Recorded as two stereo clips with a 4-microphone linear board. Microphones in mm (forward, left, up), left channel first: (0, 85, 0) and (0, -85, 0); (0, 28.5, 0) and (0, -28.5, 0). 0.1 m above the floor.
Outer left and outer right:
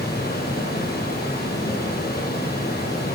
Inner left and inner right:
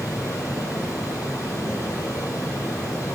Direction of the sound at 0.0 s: 65° left (ahead or behind).